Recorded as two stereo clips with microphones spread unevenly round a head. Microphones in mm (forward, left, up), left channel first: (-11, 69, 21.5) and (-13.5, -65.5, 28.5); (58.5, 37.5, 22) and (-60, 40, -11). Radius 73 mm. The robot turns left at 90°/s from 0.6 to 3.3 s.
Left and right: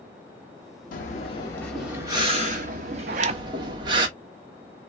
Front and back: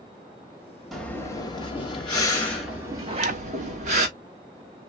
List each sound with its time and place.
0.9 s breathing: 75° left, 1.1 m; by 4.1 s 140° right, 1.1 m
3.1 s a zipper: 115° right, 0.5 m; by 3.4 s 135° right, 0.5 m